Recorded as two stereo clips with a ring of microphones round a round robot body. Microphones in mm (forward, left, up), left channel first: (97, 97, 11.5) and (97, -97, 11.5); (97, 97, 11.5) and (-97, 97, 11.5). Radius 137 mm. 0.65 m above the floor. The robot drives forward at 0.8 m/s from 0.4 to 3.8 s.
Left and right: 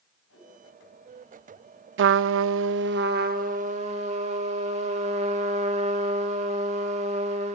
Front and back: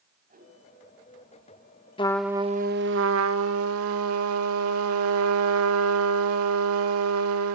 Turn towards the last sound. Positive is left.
turn(degrees=-160)